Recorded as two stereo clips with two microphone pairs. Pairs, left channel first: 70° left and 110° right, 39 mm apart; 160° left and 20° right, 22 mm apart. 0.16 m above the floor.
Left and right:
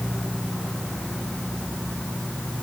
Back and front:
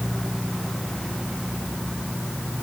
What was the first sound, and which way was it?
Only background noise.